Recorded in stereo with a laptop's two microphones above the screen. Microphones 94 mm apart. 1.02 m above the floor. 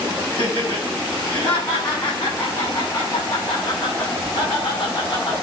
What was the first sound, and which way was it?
Laughter, 20° left (ahead or behind).